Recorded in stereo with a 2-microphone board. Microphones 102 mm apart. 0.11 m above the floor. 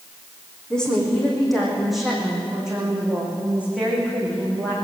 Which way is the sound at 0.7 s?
5° left (ahead or behind).